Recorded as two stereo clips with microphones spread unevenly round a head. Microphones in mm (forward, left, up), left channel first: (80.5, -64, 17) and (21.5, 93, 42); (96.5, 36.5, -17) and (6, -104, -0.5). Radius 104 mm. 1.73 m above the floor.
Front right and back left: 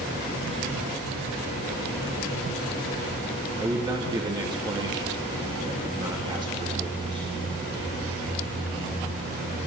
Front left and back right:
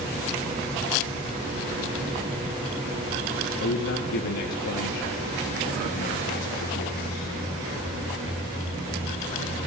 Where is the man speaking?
45° left, 3 m.